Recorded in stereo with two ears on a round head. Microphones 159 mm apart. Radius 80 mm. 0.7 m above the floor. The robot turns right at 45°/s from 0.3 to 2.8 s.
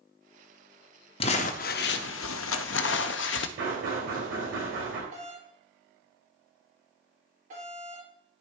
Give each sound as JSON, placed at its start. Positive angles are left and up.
{"t": 1.2, "sound": "crumpling", "azimuth_deg": 30, "distance_m": 0.5}
{"t": 3.6, "sound": "knocking", "side_deg": -75, "distance_m": 2.5}
{"t": 5.1, "sound": "a doorbell", "side_deg": -45, "distance_m": 2.5}